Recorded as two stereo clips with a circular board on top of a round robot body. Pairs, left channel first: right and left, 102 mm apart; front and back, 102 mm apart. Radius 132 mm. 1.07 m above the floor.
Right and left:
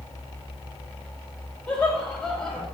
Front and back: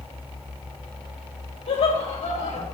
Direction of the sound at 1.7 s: 10° right.